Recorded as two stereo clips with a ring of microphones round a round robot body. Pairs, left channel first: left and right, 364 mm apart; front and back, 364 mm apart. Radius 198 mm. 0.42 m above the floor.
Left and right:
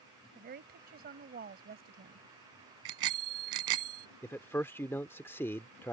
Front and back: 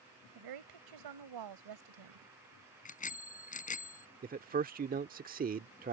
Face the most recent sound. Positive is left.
turn(degrees=165)